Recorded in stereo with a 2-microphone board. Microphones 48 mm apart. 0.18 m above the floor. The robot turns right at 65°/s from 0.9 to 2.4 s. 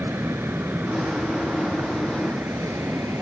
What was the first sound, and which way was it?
An aircraft, 60° right (ahead or behind).